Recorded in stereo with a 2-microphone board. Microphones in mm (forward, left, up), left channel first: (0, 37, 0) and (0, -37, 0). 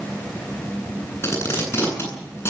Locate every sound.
1.2 s tape being pulled: 35° left (ahead or behind), 9.5 m